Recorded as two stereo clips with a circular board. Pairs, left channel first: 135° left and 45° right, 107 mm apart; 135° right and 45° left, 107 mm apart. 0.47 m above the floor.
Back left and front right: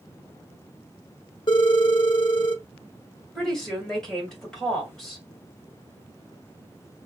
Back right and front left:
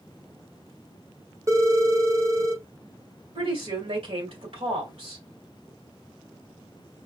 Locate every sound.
1.5 s a phone ringing: 100° left, 0.9 m
3.4 s a woman speaking: 50° left, 2.5 m